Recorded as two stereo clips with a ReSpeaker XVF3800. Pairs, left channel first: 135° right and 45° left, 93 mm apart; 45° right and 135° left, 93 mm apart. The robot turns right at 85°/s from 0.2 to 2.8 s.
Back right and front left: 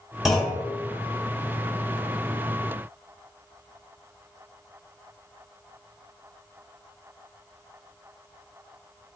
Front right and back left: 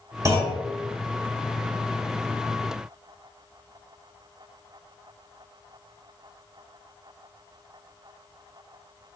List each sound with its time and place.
0.2 s a clunk: 130° left, 1.5 m; by 0.6 s 165° left, 1.5 m